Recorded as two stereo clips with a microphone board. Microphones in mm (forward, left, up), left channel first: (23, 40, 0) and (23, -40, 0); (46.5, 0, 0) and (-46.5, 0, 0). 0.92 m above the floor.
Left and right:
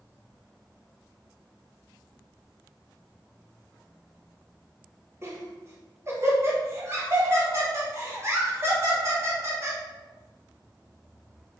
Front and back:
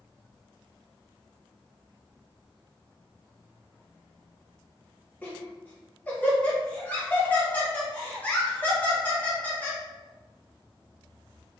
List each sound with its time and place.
5.2 s laughter: 65° right, 1.0 m